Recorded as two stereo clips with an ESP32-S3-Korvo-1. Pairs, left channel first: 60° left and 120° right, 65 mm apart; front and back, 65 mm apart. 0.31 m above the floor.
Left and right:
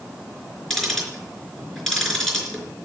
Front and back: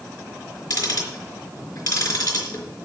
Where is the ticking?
25° right, 4 m.